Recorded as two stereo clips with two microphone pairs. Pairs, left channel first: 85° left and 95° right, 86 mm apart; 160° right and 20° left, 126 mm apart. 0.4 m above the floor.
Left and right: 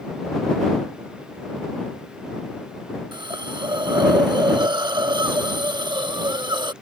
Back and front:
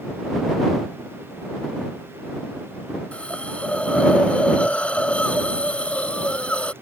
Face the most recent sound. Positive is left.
turn(degrees=-80)